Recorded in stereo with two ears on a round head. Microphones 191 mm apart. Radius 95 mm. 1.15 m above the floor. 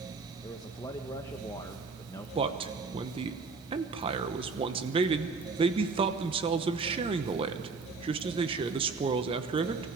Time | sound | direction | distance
0.4 | a man speaking | 15° left (ahead or behind) | 1.1 m
2.4 | a man speaking | 25° right (ahead or behind) | 1.0 m